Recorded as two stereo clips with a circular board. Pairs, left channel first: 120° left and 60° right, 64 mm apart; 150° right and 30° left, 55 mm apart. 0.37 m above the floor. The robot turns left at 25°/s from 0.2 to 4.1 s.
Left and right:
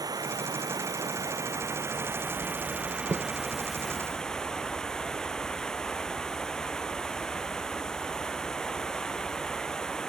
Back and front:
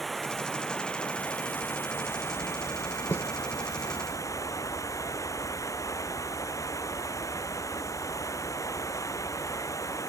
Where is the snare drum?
105° right; by 3.3 s 110° right.